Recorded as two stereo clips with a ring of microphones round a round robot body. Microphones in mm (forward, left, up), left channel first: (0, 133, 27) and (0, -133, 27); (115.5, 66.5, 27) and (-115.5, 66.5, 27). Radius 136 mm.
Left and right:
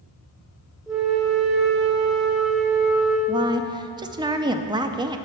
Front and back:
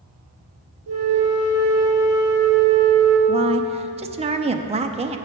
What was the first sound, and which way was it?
A flute, straight behind.